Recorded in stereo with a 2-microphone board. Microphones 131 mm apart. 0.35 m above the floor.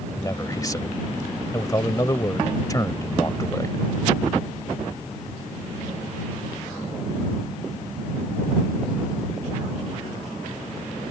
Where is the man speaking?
25° left (ahead or behind).